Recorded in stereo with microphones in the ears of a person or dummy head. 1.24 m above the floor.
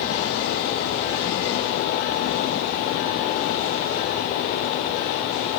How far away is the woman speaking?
I don't hear a woman speaking.